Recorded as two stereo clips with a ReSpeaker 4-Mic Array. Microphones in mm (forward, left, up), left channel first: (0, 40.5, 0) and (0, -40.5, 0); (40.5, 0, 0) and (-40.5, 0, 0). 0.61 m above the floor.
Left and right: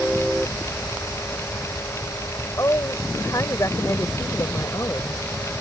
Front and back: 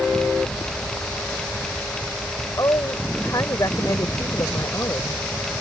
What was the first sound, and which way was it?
A woman speaking, 45° left.